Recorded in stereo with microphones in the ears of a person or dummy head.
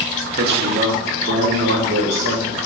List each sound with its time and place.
0.4 s a man speaking: 50° right (ahead or behind), 0.8 m; by 2.6 s 70° right (ahead or behind), 2 m